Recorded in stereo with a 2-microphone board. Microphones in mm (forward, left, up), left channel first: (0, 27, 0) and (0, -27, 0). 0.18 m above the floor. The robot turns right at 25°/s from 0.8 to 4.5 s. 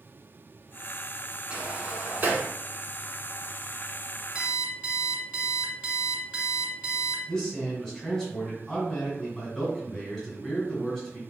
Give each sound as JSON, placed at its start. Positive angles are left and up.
{"t": 1.5, "sound": "a sliding door", "side_deg": -20, "distance_m": 1.1}
{"t": 4.3, "sound": "an alarm clock", "side_deg": -25, "distance_m": 0.7}
{"t": 7.3, "sound": "a man speaking", "side_deg": 10, "distance_m": 1.8}